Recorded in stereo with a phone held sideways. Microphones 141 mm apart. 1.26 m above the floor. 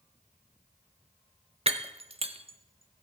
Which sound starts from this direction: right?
Breaking glass, at 1.7 s.